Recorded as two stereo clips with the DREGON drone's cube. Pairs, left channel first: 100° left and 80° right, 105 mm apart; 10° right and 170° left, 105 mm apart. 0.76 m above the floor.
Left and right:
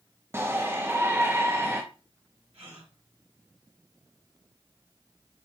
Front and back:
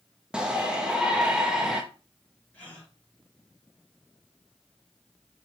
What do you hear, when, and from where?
0.3 s a shout: 115° right, 1.0 m
2.5 s a gasp: 85° right, 5.5 m